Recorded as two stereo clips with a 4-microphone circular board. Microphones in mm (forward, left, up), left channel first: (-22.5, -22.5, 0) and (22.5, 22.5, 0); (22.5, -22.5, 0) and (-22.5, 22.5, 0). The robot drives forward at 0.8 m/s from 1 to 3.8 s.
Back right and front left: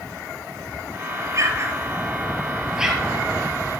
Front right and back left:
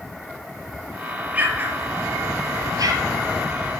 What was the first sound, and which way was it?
An explosion, 75° left.